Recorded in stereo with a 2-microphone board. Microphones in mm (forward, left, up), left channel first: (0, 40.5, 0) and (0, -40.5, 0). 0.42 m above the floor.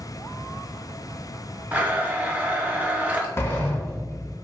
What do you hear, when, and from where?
1.7 s a blender: 20° right (ahead or behind), 0.5 m
3.4 s a sliding door: 30° left (ahead or behind), 0.7 m